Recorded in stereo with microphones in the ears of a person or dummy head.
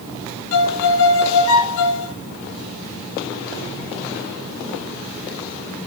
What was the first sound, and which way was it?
A violin, 70° left (ahead or behind).